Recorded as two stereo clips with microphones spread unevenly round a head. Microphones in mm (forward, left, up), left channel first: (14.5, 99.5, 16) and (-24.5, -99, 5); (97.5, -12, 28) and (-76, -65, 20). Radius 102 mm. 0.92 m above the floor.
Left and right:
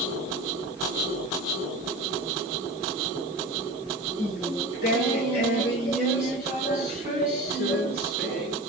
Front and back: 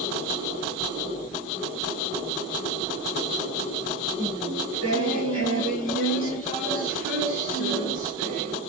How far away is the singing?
About 10 m.